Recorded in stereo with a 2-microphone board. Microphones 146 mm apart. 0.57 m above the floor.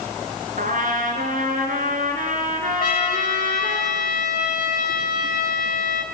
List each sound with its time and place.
0.6 s a trumpet: 65° right (ahead or behind), 3.5 m
2.8 s a trumpet: 75° left (ahead or behind), 2.5 m